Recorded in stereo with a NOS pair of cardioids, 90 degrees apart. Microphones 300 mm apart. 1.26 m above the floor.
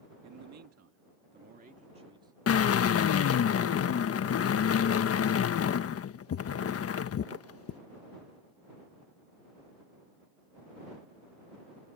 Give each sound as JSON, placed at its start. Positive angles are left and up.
{"t": 0.2, "sound": "a man speaking", "azimuth_deg": -70}
{"t": 2.5, "sound": "a drill", "azimuth_deg": 50}